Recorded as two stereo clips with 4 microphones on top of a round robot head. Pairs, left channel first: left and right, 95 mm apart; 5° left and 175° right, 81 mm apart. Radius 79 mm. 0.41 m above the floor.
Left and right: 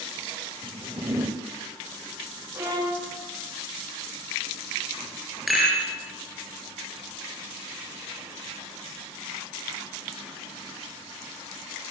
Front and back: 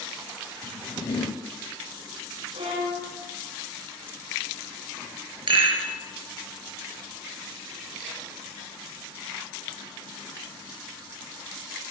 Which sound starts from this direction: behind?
A rattle, at 5.5 s.